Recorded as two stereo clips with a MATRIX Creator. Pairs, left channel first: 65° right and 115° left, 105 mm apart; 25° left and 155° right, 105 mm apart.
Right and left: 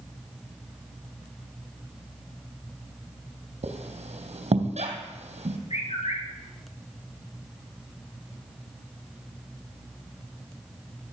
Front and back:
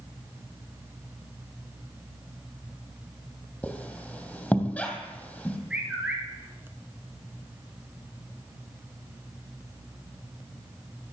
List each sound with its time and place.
3.6 s a squeak: 100° left, 3 m
5.7 s a bird: 80° right, 5.5 m